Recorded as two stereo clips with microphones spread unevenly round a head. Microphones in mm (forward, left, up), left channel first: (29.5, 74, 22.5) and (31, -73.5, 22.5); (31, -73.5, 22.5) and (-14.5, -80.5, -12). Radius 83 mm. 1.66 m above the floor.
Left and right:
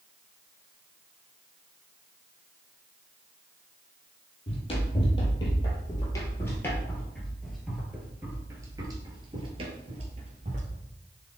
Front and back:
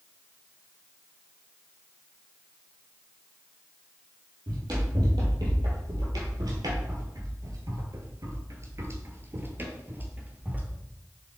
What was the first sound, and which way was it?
Running footsteps, 140° left.